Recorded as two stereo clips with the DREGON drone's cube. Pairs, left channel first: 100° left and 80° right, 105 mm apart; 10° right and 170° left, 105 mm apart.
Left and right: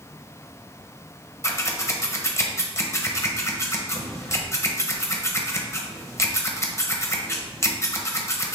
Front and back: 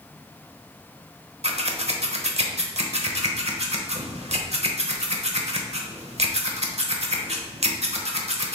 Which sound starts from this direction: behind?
Scissors, at 1.4 s.